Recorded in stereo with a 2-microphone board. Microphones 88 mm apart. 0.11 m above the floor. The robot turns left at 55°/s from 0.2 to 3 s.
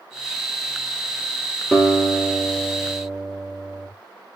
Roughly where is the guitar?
Ahead.